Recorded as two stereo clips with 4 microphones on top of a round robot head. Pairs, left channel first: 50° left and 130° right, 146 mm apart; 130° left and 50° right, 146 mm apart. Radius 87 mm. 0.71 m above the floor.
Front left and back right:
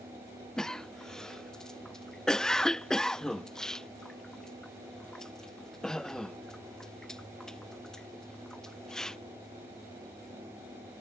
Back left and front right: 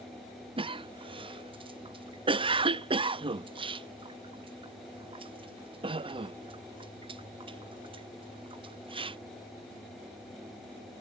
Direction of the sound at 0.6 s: 30° right.